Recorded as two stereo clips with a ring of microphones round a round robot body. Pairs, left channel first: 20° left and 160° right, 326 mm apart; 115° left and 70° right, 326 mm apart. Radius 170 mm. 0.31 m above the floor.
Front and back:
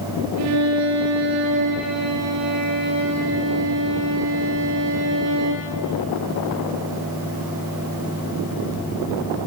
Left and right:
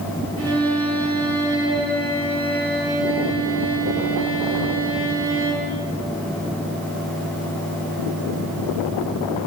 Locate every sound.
0.4 s a violin: 115° right, 5.5 m